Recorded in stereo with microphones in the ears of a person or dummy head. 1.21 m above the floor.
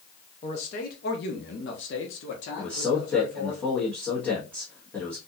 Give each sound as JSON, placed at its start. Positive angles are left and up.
{"t": 0.4, "sound": "a man speaking", "side_deg": 30, "distance_m": 0.7}
{"t": 2.6, "sound": "a man speaking", "side_deg": 5, "distance_m": 1.3}